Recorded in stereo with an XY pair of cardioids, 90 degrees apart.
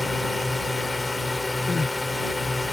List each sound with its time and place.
0.0 s a drone: 20° left
1.7 s crying: 30° left